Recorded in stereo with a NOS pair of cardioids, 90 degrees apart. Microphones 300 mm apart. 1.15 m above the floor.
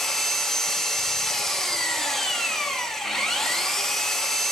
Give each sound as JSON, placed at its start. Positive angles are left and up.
{"t": 0.0, "sound": "an engine running", "azimuth_deg": 0, "distance_m": 0.7}